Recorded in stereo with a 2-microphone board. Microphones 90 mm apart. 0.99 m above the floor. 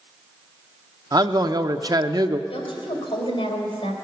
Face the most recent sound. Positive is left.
turn(degrees=70)  # may be behind; listen again after turning